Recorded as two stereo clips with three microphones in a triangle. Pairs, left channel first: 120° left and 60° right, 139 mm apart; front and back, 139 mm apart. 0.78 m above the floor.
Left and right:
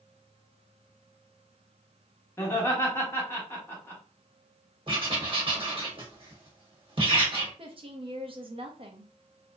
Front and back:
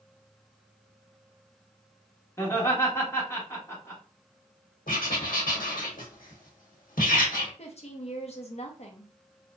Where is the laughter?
55° left, 1.2 m.